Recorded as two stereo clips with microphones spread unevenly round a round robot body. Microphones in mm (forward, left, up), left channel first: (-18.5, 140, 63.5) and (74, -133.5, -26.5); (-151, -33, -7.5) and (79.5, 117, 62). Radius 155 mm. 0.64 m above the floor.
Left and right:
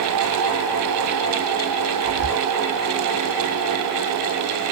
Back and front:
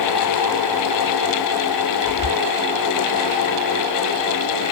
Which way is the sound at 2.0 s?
10° right.